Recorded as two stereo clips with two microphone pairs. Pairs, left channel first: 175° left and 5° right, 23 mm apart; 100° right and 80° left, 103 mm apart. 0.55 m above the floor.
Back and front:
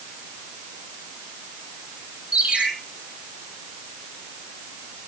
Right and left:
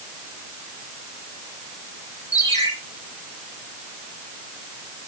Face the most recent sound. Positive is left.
turn(degrees=-40)